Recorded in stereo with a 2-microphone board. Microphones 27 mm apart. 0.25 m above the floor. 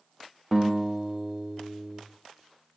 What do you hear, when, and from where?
0.5 s a guitar: 10° left (ahead or behind), 4.5 m